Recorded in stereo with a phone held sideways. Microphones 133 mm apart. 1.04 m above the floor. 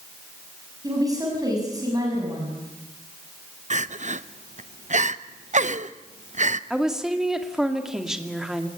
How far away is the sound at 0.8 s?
About 6.5 m.